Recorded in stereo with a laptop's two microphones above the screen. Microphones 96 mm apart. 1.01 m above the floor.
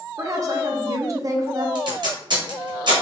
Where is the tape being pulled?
50° right (ahead or behind), 1.0 m.